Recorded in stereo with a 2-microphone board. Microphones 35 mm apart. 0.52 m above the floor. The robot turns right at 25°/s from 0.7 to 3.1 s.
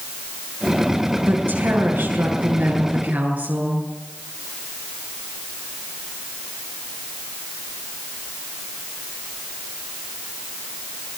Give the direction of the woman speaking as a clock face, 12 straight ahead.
3 o'clock.